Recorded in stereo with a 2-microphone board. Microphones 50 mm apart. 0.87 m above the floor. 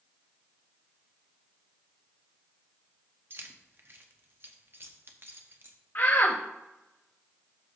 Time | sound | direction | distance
3.3 | keys jangling | 50° right (ahead or behind) | 0.9 m
6.0 | a shout | 50° left (ahead or behind) | 0.8 m